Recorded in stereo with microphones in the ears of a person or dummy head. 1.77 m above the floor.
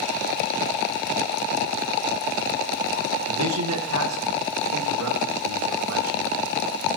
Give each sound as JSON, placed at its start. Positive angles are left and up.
{"t": 3.3, "sound": "a man speaking", "side_deg": -85, "distance_m": 1.2}